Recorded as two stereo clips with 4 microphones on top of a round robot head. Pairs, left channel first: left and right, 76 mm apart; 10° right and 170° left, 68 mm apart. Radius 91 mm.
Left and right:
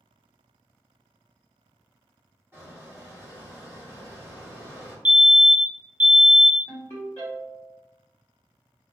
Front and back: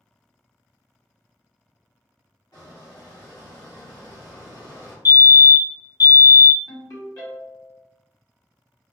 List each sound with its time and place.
2.5 s a squeak: 30° right, 1.1 m
5.0 s a fire alarm: 20° right, 0.8 m
6.7 s a ringtone: 25° left, 1.7 m